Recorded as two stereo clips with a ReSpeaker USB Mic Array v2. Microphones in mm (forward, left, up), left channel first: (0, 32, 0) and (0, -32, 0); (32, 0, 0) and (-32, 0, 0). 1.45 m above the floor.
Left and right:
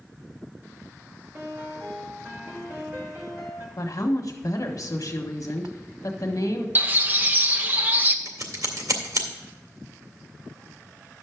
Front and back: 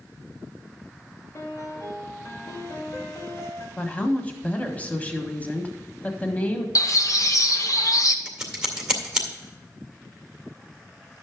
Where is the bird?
30° right, 0.9 m.